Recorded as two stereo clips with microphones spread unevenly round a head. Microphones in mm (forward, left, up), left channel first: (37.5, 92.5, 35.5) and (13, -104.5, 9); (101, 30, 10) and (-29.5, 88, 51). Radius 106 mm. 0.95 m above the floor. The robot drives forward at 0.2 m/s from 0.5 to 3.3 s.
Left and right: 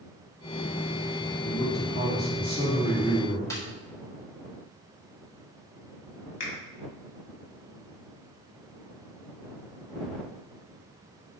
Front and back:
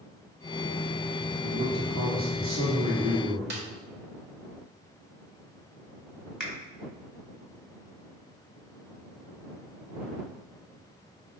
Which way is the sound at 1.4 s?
140° left.